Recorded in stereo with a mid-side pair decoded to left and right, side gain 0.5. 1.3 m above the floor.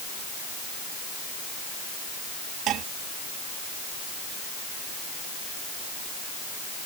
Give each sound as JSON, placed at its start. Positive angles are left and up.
{"t": 2.7, "sound": "dishes clattering", "azimuth_deg": -65}